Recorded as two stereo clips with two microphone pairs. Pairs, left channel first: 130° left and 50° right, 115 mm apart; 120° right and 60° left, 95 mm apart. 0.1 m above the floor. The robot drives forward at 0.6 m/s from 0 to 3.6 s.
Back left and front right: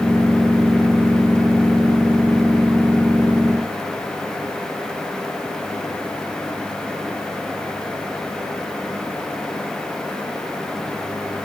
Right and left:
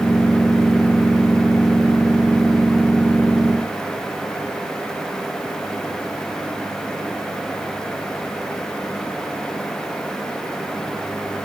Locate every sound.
Only background noise.